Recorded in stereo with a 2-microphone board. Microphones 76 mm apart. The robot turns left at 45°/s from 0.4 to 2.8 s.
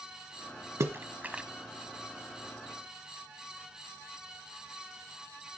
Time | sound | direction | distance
0.8 | a splash | 40° right (ahead or behind) | 0.9 m